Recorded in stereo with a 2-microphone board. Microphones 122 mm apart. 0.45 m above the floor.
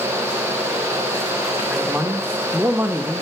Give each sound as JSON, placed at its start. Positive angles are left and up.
{"t": 1.7, "sound": "a man speaking", "side_deg": -15, "distance_m": 0.8}